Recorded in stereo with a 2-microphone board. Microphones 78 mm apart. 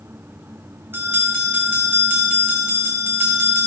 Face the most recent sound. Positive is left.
turn(degrees=-30)  # may be behind; listen again after turning